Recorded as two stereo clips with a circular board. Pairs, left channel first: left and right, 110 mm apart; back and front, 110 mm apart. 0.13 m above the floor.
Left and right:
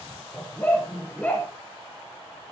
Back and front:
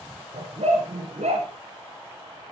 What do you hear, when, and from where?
0.3 s a dog barking: 20° left, 7.5 m; by 1.5 s 10° left, 8 m